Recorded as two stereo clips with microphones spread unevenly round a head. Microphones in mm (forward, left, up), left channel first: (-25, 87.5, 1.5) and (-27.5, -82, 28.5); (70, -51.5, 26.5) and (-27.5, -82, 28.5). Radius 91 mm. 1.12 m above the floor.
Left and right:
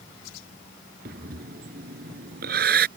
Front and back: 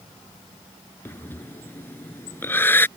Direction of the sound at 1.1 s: 50° right.